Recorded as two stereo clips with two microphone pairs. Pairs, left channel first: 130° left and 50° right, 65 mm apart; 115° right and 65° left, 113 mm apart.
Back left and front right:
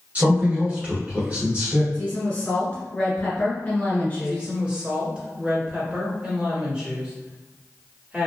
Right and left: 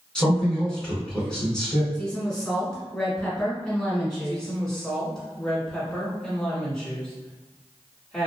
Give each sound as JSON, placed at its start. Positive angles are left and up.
{"t": 0.1, "sound": "a man speaking", "azimuth_deg": -40, "distance_m": 1.6}
{"t": 1.9, "sound": "a woman speaking", "azimuth_deg": 165, "distance_m": 1.4}
{"t": 4.2, "sound": "a woman speaking", "azimuth_deg": -35, "distance_m": 1.3}